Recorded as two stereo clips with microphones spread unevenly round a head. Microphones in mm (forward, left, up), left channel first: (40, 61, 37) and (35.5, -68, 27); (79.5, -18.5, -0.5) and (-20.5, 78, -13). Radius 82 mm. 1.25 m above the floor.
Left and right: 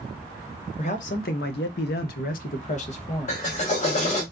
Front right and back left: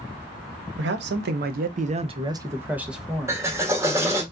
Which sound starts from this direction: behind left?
A man speaking, at 0.8 s.